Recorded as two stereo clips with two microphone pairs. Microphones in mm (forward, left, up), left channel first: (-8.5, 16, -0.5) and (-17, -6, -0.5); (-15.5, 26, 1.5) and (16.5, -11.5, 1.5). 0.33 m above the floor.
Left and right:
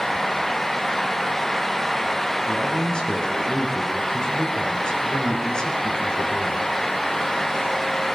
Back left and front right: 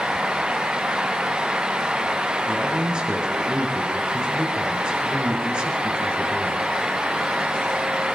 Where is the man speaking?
20° left, 4 m.